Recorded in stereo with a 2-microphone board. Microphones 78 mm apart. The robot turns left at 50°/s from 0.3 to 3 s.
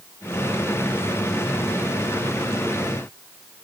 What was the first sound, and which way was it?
Only background noise.